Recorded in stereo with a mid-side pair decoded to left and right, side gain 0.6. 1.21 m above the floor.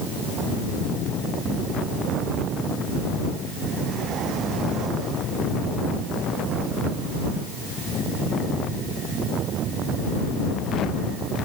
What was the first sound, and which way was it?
Only background noise.